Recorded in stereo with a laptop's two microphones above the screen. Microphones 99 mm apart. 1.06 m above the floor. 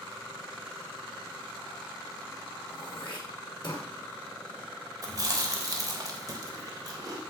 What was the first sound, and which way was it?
Throat clearing, 60° left (ahead or behind).